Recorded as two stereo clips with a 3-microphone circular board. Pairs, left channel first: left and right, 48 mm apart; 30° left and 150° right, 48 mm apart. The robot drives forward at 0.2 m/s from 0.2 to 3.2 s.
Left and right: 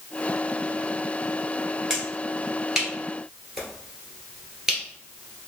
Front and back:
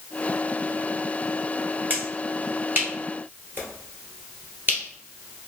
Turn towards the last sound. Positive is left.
turn(degrees=-170)